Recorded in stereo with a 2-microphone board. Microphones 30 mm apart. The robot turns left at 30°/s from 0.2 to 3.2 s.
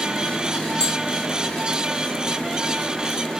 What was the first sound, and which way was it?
Tapping, 25° left (ahead or behind).